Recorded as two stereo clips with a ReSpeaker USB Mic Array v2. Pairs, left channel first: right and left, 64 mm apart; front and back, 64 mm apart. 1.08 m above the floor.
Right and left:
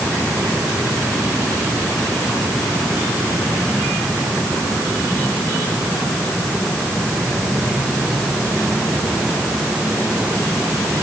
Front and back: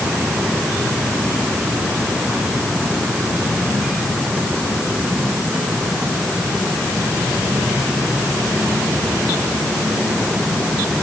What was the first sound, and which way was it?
Only background noise.